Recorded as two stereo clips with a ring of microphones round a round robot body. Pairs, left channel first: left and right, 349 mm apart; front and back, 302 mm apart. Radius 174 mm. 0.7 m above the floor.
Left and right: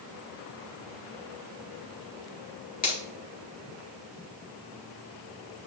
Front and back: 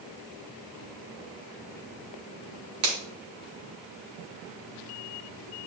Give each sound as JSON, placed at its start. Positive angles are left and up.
{"t": 2.8, "sound": "a finger snap", "azimuth_deg": 155, "distance_m": 2.5}